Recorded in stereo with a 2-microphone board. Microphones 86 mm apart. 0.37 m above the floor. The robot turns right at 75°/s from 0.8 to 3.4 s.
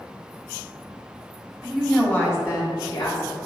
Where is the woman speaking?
5° right, 2.5 m; by 3.4 s 125° left, 2.5 m.